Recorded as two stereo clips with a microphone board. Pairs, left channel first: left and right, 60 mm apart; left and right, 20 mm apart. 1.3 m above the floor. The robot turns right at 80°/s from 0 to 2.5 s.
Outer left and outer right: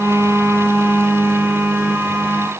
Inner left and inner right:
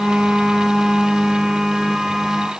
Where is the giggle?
No giggle in this recording.